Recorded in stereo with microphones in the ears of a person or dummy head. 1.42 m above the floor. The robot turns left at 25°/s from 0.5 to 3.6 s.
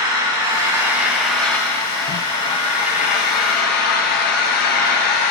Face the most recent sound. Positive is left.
turn(degrees=125)